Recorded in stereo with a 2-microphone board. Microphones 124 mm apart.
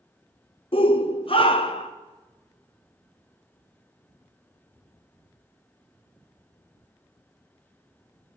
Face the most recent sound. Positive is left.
turn(degrees=45)  # may be behind; listen again after turning